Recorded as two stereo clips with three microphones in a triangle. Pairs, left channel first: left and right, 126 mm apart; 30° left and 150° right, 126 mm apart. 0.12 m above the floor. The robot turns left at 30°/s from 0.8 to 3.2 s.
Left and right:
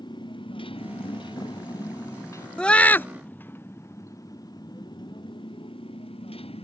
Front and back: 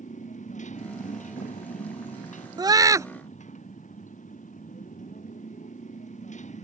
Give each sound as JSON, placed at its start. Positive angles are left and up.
{"t": 0.0, "sound": "a motorcycle", "azimuth_deg": 35}
{"t": 2.6, "sound": "a scream", "azimuth_deg": 170}